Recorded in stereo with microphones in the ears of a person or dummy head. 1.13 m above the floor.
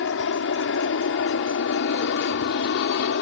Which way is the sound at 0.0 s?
60° left (ahead or behind).